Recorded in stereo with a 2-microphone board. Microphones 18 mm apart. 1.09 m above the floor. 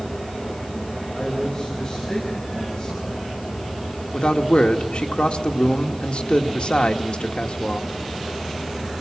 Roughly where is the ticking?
I don't hear ticking.